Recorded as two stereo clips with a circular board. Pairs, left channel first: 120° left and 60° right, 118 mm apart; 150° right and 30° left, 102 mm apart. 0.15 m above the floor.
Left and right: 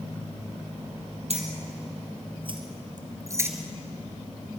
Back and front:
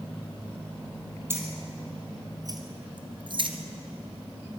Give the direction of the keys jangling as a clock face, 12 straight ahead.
1 o'clock.